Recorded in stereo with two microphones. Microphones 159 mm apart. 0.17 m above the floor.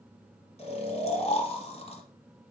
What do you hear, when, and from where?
0.6 s snoring: 40° left (ahead or behind), 1.6 m